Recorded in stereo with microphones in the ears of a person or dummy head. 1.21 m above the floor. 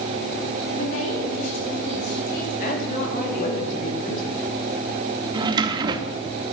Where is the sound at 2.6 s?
45° left (ahead or behind), 2.5 m.